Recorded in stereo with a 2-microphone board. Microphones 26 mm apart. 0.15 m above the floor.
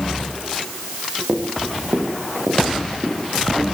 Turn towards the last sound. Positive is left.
turn(degrees=-75)  # may be behind; listen again after turning